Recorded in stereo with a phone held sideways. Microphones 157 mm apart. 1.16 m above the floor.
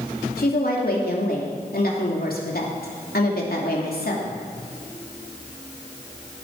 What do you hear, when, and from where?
0.4 s a woman speaking: 75° left (ahead or behind), 2.5 m